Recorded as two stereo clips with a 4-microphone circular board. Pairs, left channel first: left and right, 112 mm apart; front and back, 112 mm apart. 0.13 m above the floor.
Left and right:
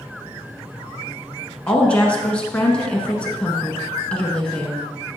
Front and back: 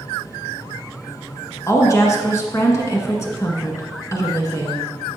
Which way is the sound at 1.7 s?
20° left.